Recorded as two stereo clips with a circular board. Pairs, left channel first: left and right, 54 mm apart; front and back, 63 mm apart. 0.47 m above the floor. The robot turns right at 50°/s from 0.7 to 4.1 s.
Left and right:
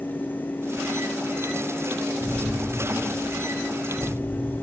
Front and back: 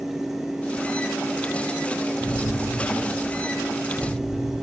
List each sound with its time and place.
2.2 s an explosion: 30° left, 1.7 m; by 4.5 s 125° left, 1.7 m